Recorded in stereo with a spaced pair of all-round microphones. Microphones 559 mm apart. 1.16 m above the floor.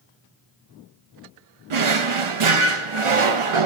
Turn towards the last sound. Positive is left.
turn(degrees=-60)  # may be behind; listen again after turning